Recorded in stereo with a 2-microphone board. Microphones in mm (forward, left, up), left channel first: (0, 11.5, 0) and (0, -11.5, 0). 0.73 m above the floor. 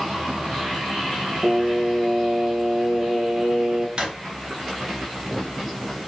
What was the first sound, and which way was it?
Singing, 40° right (ahead or behind).